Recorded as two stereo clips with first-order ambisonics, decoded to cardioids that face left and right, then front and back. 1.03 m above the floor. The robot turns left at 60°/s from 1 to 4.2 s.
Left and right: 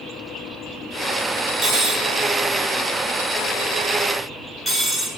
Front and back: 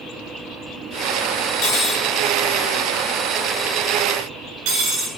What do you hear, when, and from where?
1.6 s cutlery clinking: 35° right, 1.1 m; by 5.1 s 170° left, 1.1 m